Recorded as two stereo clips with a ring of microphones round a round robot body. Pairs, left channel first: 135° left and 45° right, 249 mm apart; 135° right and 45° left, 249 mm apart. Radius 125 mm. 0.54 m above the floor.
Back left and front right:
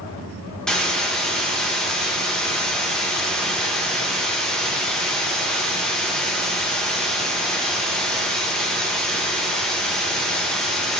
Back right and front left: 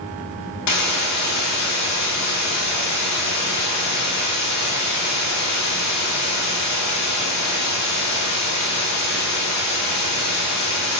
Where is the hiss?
140° right, 0.5 m.